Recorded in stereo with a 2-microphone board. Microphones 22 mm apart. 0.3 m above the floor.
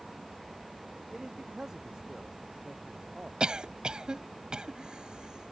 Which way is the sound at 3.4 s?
45° right (ahead or behind).